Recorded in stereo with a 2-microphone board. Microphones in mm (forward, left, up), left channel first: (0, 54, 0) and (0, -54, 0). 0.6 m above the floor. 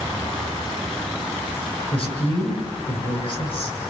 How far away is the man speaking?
About 8 m.